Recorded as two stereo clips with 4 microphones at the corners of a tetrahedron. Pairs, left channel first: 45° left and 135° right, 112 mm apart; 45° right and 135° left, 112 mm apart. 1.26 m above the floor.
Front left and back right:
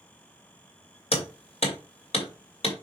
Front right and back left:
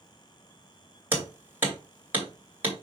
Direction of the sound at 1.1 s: 65° left.